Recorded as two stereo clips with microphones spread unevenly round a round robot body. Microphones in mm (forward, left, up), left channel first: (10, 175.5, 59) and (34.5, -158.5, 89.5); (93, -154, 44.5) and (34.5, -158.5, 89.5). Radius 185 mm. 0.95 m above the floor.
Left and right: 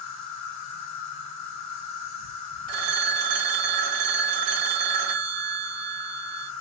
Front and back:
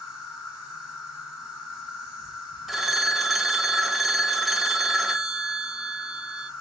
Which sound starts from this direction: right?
A phone ringing, at 2.7 s.